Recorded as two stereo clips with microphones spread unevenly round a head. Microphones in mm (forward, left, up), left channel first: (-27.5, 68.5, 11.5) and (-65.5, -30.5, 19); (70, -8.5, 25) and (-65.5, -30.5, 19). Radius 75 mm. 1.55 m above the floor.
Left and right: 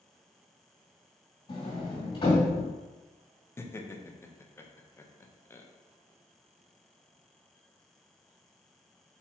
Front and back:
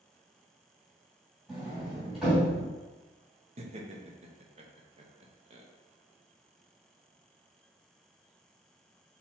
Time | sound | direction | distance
1.5 | a sliding door | 100° left | 2 m
3.6 | laughter | 135° left | 0.7 m